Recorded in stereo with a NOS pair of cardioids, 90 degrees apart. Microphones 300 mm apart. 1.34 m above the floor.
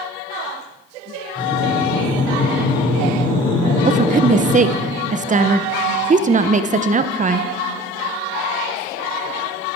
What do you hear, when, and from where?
1.4 s breathing: 15° left, 5 m
3.9 s a woman speaking: 25° right, 0.8 m